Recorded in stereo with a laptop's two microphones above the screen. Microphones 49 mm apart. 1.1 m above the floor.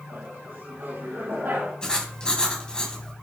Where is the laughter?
45° right (ahead or behind), 5.5 m; by 1.7 s 55° right (ahead or behind), 5.5 m.